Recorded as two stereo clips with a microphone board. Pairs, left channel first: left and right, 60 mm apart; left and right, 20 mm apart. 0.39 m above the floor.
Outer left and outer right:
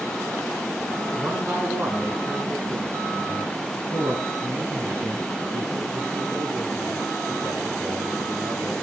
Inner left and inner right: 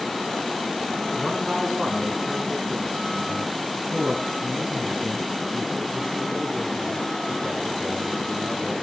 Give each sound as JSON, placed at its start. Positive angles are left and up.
{"t": 1.1, "sound": "a man speaking", "side_deg": -35, "distance_m": 4.0}